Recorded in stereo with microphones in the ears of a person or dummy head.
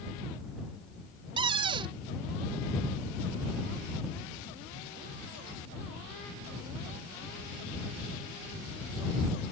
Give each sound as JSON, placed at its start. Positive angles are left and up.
{"t": 1.4, "sound": "a cupboard door", "side_deg": -30}